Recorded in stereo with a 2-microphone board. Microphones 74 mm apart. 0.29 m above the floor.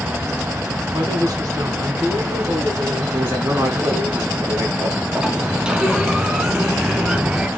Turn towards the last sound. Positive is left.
turn(degrees=-10)  # may be behind; listen again after turning